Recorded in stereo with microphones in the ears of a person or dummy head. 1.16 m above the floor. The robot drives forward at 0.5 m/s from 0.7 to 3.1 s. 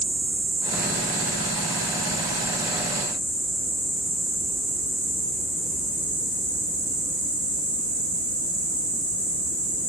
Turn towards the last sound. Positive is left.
turn(degrees=-55)  # may be behind; listen again after turning